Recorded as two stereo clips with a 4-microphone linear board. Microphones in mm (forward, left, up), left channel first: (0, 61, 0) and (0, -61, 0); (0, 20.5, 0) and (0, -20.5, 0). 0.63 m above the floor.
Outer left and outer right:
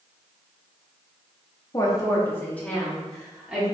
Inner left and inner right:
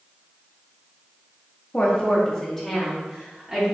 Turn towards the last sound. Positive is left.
turn(degrees=-5)  # may be behind; listen again after turning